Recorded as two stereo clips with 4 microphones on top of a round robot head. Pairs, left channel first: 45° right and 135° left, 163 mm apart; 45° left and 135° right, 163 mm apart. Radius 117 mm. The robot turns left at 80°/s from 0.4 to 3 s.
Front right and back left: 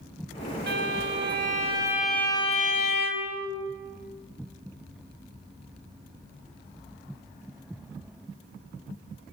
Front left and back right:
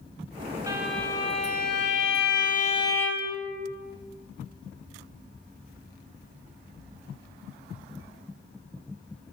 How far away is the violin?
About 4.5 m.